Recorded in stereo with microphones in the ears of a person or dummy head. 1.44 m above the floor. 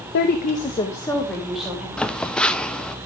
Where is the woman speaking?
55° left (ahead or behind), 1.2 m; by 1.9 s 5° right (ahead or behind), 2.5 m.